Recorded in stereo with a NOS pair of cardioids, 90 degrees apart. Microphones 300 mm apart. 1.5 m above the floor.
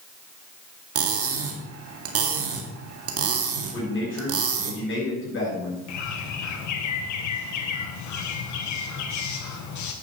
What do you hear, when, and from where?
0.9 s cutlery clinking: 55° right, 2 m
3.7 s a man speaking: 40° left, 7 m
5.9 s a bird: 70° left, 1.8 m